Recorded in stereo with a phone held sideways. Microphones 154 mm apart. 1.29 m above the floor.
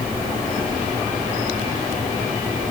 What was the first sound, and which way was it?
Only background noise.